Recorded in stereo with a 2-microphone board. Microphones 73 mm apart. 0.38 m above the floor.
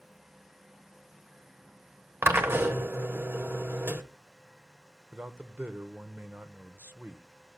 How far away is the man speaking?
About 0.8 m.